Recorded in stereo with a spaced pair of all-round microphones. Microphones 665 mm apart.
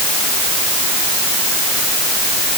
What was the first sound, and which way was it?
Only background noise.